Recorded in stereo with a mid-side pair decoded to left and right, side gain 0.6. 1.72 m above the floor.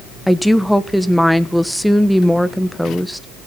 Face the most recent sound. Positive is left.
turn(degrees=0)